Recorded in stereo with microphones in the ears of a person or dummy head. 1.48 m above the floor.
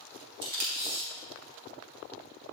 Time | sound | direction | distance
0.4 | tape being pulled | 55° right (ahead or behind) | 2.5 m